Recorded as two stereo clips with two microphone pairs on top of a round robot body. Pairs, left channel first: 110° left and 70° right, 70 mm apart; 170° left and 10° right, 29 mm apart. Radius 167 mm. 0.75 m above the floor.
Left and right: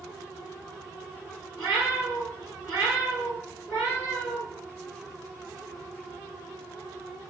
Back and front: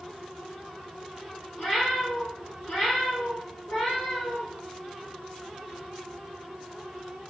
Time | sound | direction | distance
1.6 | a cat meowing | 160° right | 1.3 m